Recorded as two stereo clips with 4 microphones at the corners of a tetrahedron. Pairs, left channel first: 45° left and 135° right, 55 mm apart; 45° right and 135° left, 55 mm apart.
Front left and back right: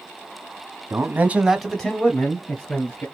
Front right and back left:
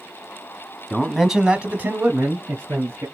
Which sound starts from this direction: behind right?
A man speaking, at 0.9 s.